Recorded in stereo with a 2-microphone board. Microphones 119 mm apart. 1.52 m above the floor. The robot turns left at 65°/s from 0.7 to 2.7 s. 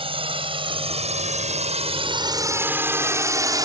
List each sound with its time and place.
0.0 s a drone: 55° right (ahead or behind); by 3.7 s 35° right (ahead or behind)